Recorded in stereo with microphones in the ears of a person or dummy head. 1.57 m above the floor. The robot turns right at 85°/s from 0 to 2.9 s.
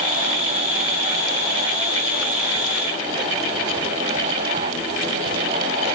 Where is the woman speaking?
I don't hear a woman speaking.